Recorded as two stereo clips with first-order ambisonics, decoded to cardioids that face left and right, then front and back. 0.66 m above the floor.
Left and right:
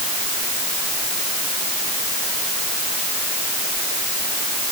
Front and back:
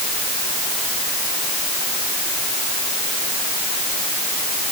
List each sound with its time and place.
Only background noise.